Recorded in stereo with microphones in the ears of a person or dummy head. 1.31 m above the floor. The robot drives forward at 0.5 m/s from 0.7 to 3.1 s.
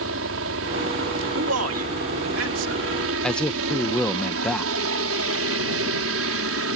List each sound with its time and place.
0.0 s a helicopter: 70° right (ahead or behind)
1.4 s a man speaking: 85° right; by 2.8 s 75° right (ahead or behind)
3.2 s a man speaking: 5° left (ahead or behind)